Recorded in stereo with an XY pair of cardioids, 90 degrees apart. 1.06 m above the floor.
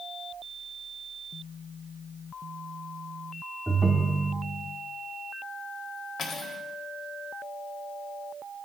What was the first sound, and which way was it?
A ringtone, 5° right.